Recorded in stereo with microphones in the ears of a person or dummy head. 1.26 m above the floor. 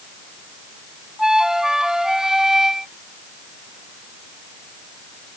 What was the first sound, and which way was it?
A flute, centre (ahead or behind).